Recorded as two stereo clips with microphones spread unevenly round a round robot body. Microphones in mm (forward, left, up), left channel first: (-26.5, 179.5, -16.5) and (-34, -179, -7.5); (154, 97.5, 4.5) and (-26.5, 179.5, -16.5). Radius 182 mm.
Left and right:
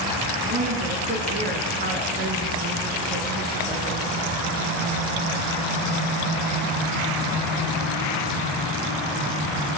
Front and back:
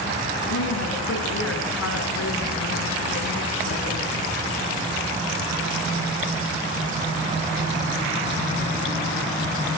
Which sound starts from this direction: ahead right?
A woman speaking, at 0.4 s.